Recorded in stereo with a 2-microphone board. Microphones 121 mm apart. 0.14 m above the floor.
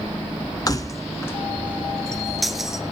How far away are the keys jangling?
About 0.9 m.